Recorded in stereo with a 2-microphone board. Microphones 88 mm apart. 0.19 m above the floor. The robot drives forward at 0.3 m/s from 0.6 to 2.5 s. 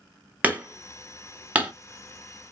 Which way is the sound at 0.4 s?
15° right (ahead or behind).